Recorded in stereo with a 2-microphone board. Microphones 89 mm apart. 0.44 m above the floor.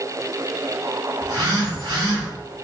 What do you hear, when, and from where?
1.2 s a phone buzzing: 55° right (ahead or behind), 2.0 m